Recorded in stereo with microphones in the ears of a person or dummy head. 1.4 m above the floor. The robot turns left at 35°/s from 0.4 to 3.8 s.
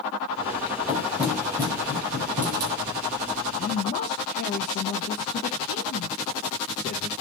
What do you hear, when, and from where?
0.9 s knocking: centre (ahead or behind), 4 m; by 2.7 s 65° right (ahead or behind), 4 m
3.6 s a man speaking: 40° left (ahead or behind), 0.6 m; by 7.1 s 50° left (ahead or behind), 0.6 m